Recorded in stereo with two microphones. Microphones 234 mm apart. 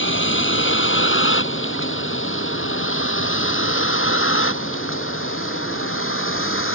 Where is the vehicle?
60° left (ahead or behind); by 6.8 s 70° left (ahead or behind).